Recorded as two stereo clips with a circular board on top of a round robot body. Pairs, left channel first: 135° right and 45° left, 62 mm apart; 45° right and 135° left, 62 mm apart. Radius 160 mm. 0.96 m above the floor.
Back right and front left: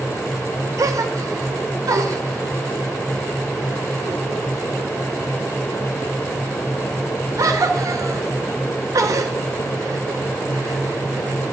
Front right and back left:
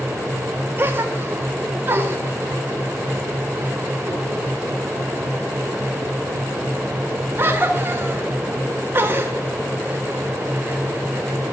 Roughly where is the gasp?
Left.